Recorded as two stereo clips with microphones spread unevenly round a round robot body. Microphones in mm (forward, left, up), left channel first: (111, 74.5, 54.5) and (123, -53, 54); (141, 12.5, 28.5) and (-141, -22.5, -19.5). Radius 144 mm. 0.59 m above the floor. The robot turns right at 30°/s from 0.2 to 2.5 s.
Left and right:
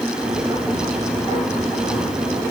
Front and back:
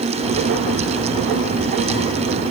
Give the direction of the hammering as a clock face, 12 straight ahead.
I don't hear hammering.